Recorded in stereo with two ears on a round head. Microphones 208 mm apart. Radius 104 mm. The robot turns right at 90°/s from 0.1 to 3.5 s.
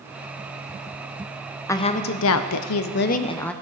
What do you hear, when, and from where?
1.7 s a woman speaking: 10° left, 0.5 m; by 3.5 s 175° left, 0.5 m